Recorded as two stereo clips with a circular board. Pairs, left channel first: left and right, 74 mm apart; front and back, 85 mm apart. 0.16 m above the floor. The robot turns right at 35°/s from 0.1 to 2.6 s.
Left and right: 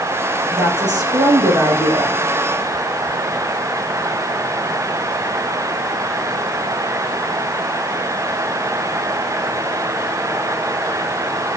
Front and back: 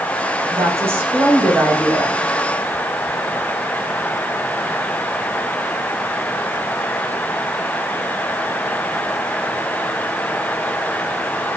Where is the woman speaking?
130° right, 7 m; by 2.2 s 70° right, 7 m.